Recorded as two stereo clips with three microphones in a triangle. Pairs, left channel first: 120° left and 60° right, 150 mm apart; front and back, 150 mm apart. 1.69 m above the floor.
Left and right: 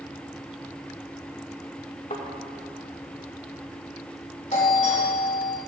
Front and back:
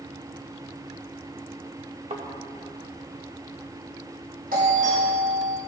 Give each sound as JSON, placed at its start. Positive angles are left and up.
{"t": 2.1, "sound": "a thud", "azimuth_deg": 145, "distance_m": 2.5}
{"t": 4.5, "sound": "a doorbell", "azimuth_deg": 155, "distance_m": 5.0}